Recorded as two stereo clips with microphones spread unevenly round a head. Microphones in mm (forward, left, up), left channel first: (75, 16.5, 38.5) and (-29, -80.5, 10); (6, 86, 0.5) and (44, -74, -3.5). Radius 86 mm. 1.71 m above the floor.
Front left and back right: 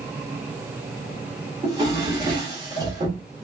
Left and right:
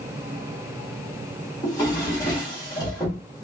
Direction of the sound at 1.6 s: 160° left.